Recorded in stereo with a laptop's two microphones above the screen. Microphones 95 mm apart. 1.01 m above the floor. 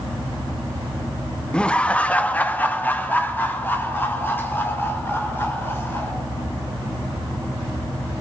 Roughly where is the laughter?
Centre.